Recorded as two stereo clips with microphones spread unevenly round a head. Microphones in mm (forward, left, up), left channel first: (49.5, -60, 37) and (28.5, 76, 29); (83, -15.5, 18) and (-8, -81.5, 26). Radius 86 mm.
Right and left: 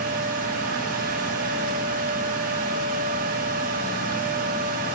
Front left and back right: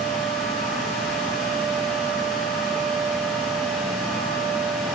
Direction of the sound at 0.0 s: 125° left.